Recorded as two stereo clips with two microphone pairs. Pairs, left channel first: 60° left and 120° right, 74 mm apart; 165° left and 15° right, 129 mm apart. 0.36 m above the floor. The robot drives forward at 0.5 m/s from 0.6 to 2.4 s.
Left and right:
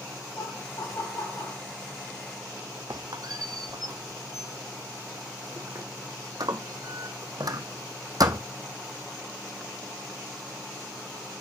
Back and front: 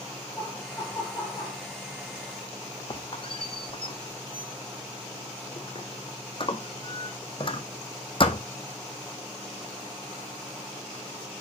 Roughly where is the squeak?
Behind right.